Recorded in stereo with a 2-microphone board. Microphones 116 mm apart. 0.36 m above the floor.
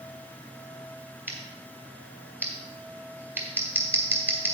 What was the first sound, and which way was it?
Scissors, 20° right (ahead or behind).